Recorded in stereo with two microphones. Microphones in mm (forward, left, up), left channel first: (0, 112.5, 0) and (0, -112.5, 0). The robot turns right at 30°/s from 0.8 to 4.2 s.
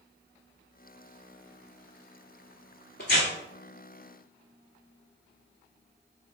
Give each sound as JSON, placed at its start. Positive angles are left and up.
{"t": 3.0, "sound": "tearing paper", "side_deg": 50, "distance_m": 1.6}